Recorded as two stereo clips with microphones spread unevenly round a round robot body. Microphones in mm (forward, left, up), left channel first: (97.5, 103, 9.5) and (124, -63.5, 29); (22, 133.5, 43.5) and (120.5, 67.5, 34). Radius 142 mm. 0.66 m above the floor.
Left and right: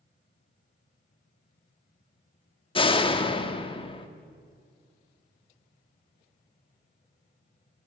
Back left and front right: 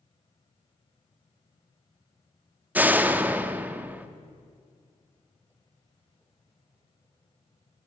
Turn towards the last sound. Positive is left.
turn(degrees=40)